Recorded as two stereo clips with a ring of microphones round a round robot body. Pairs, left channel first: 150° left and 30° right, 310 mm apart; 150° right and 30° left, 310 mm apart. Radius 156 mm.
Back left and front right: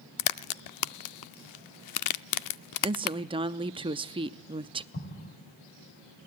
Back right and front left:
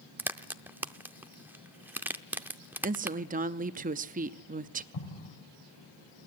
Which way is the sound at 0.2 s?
115° left.